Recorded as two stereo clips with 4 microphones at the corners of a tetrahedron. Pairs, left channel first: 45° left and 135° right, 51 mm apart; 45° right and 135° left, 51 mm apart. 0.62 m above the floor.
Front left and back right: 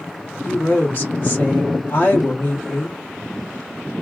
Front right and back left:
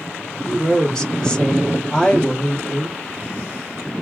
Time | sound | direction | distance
0.5 | a woman speaking | 25° left | 1.5 m